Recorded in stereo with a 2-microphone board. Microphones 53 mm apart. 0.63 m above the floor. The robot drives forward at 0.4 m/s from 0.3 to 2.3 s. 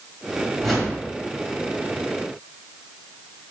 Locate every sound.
0.6 s a whoosh: centre (ahead or behind), 2 m